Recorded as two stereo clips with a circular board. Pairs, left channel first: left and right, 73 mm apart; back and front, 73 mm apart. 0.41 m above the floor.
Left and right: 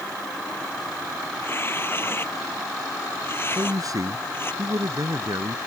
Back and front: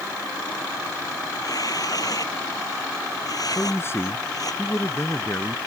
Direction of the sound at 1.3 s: 150° left.